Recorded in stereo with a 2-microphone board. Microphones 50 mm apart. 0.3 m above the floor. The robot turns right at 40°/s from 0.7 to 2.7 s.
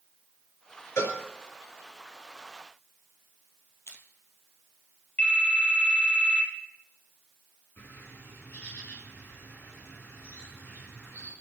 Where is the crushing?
75° left (ahead or behind), 1.9 m.